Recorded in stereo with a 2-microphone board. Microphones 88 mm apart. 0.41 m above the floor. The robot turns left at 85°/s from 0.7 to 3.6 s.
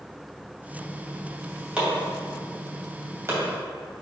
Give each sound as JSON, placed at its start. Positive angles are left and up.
{"t": 1.8, "sound": "chopping", "side_deg": -10, "distance_m": 2.0}